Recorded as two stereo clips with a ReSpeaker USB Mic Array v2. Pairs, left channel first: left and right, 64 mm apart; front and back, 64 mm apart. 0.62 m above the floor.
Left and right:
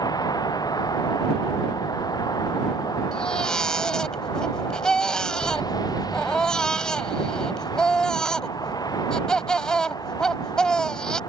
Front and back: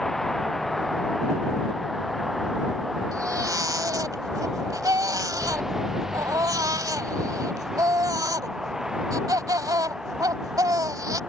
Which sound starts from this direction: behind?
A baby crying, at 3.1 s.